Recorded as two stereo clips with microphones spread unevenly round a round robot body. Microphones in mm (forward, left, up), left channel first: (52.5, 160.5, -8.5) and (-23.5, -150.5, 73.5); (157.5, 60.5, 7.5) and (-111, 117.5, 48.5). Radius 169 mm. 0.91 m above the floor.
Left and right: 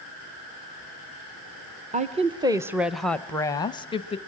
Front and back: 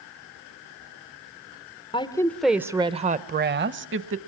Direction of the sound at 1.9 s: 30° right.